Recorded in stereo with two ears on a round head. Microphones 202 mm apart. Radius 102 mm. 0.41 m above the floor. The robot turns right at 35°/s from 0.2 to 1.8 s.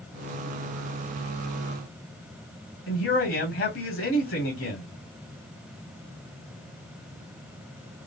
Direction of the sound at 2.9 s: 60° left (ahead or behind).